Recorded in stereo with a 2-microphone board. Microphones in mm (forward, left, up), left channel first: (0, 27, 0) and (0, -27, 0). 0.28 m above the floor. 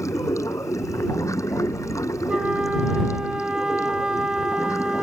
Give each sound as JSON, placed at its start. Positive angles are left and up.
{"t": 0.0, "sound": "running water", "side_deg": 70}
{"t": 2.3, "sound": "a flute", "side_deg": -15}